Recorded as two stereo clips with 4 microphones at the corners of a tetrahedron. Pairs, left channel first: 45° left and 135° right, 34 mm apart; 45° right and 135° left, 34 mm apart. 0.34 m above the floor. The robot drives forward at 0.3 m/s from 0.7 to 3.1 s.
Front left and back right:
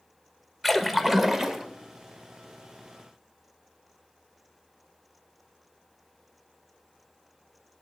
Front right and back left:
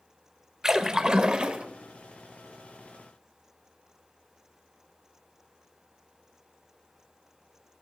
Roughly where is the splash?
Behind left.